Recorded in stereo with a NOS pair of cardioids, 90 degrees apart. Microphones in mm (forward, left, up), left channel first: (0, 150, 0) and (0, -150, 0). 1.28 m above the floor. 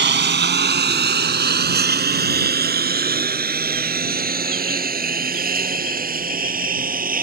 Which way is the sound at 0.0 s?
40° right.